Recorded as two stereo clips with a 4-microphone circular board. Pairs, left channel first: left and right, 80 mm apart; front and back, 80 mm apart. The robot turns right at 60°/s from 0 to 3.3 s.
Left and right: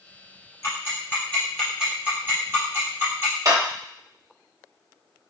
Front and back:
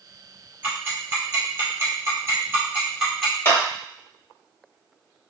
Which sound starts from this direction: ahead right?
A clap, at 3.5 s.